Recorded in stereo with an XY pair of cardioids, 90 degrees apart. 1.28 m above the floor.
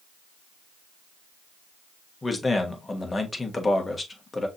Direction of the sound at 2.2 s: 25° left.